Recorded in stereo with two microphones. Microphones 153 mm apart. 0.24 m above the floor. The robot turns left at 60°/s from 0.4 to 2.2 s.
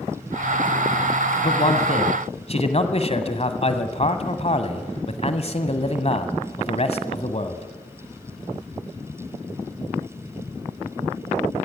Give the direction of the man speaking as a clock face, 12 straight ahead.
8 o'clock.